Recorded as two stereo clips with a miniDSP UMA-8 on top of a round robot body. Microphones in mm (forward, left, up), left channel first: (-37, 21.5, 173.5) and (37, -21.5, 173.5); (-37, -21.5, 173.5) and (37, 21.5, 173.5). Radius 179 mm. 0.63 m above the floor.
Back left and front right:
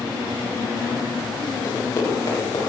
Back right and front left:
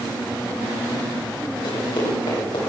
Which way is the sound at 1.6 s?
170° right.